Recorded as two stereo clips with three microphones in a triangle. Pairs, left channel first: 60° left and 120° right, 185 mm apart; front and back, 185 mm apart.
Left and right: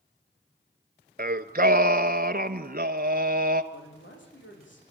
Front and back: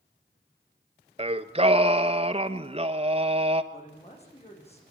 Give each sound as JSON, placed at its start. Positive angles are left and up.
{"t": 1.2, "sound": "singing", "azimuth_deg": -135, "distance_m": 1.1}
{"t": 3.7, "sound": "a man speaking", "azimuth_deg": 55, "distance_m": 9.0}